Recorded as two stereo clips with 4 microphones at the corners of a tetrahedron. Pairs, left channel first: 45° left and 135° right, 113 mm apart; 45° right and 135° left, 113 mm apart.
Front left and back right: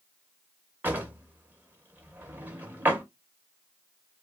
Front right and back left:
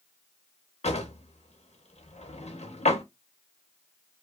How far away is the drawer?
About 0.7 m.